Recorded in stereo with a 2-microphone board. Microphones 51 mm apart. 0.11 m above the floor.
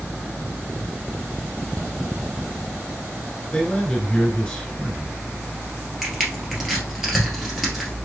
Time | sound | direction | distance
3.5 | a man speaking | 25° left (ahead or behind) | 1.6 m
6.0 | crushing | centre (ahead or behind) | 1.9 m